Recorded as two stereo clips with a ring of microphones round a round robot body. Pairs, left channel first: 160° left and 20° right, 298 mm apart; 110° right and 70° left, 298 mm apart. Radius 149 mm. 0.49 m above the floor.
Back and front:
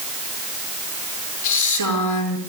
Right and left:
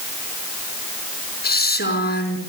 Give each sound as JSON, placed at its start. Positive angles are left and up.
{"t": 1.4, "sound": "a woman speaking", "azimuth_deg": -175, "distance_m": 5.0}